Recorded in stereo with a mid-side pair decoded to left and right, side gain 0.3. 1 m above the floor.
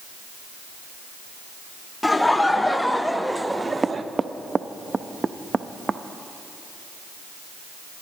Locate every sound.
2.0 s laughter: 25° left, 1.7 m; by 4.0 s 55° right, 0.6 m
3.5 s knocking: 35° right, 0.5 m